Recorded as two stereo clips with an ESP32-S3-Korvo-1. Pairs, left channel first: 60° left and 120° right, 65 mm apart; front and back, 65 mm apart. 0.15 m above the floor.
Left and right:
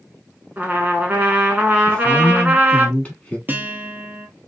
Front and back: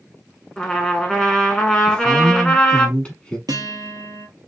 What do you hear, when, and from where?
0.6 s a trumpet: 75° right, 0.9 m
1.9 s a woman speaking: 40° left, 1.1 m
3.5 s a guitar: straight behind, 0.9 m